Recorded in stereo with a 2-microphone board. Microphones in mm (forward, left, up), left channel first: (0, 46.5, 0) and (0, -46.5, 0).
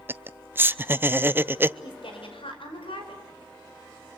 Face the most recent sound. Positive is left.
turn(degrees=85)